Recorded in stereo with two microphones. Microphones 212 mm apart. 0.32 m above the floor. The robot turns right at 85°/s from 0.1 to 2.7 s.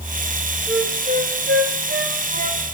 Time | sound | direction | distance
0.7 | a flute | centre (ahead or behind) | 3.5 m